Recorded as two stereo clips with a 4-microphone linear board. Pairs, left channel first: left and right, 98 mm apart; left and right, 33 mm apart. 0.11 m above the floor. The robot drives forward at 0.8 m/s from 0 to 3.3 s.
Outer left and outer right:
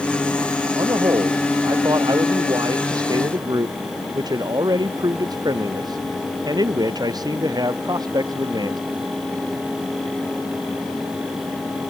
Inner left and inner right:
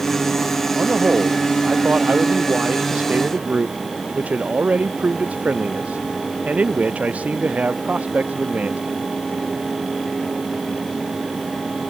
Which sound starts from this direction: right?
A man speaking, at 0.8 s.